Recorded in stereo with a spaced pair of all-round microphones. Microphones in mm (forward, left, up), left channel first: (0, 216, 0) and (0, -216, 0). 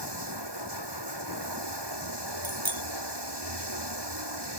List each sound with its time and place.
0.0 s running water: 65° right (ahead or behind)
2.4 s a bicycle bell: 50° right (ahead or behind)